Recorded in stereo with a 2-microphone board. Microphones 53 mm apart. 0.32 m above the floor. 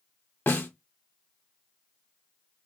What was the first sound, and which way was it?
A snare drum, 40° left (ahead or behind).